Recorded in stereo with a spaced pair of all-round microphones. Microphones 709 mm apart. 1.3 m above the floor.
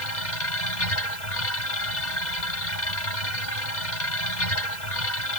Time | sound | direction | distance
0.0 | a machine running | 90° left | ?